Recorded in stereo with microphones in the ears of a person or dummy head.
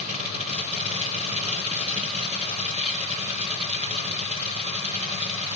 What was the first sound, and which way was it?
A machine running, 35° right (ahead or behind).